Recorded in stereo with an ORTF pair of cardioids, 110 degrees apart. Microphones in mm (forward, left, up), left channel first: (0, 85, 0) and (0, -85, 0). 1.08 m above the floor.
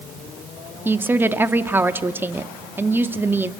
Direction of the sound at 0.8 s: 10° right.